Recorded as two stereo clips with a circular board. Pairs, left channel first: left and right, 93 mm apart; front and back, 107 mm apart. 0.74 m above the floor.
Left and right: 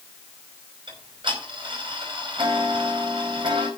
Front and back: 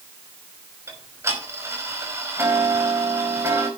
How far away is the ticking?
About 5 m.